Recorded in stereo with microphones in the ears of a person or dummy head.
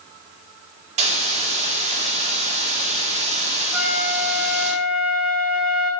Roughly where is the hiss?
Right.